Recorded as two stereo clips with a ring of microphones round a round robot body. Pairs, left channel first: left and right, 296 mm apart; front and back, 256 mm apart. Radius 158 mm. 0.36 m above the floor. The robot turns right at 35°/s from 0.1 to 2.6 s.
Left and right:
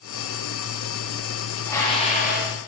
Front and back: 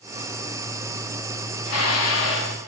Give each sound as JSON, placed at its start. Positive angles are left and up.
{"t": 1.6, "sound": "dishes clattering", "azimuth_deg": 5, "distance_m": 2.5}